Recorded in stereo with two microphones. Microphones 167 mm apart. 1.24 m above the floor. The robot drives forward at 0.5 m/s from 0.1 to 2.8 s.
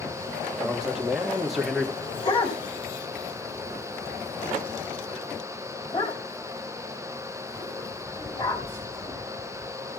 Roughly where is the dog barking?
Left.